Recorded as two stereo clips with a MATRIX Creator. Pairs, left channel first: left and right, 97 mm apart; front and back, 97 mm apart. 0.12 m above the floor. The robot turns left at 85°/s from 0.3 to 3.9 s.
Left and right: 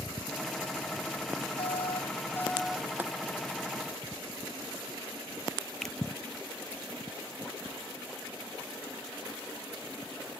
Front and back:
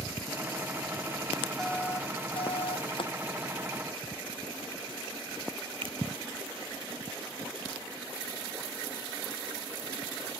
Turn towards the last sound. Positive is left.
turn(degrees=175)